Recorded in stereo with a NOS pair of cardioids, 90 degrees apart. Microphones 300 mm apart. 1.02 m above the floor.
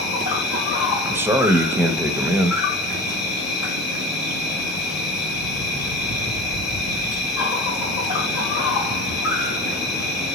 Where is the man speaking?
10° right, 0.7 m.